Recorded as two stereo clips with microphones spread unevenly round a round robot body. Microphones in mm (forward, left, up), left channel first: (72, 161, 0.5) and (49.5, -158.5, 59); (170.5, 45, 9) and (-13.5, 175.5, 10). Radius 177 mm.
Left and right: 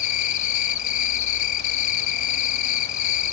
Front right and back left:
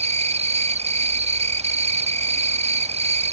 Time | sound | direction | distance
0.0 | an insect | 85° left | 0.7 m